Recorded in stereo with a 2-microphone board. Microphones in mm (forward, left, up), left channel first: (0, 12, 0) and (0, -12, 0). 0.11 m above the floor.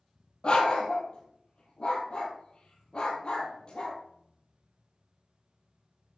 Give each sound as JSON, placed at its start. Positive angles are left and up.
{"t": 0.4, "sound": "a dog barking", "side_deg": 40, "distance_m": 1.4}